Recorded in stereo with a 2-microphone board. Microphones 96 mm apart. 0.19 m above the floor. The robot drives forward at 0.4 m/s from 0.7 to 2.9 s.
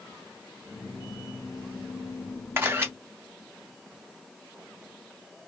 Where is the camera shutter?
25° right (ahead or behind), 0.8 m.